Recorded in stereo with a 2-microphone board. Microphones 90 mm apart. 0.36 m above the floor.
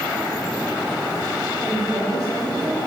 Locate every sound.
1.6 s a woman speaking: 35° right (ahead or behind), 2 m